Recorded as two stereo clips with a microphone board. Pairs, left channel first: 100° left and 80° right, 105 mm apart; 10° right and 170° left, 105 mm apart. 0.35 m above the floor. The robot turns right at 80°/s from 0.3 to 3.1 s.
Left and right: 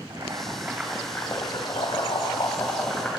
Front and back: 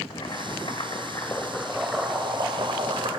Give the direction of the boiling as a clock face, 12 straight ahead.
1 o'clock.